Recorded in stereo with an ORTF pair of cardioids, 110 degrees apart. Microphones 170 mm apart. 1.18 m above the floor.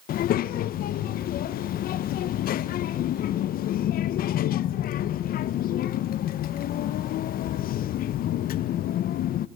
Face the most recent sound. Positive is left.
turn(degrees=60)